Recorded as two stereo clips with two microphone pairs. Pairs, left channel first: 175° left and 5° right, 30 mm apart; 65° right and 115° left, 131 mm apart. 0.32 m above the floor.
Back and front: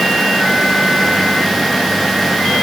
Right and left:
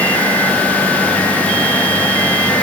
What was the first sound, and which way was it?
Only background noise.